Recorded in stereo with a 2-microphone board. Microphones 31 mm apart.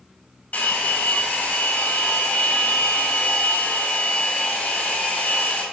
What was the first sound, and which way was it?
A hair dryer, 50° left (ahead or behind).